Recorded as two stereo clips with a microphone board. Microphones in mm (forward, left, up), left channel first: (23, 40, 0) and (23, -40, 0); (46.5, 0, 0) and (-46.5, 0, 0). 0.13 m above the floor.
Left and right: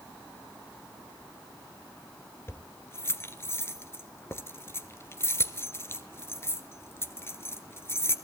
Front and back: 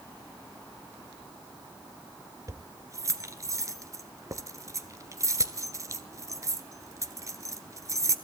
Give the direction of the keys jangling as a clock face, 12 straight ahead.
7 o'clock.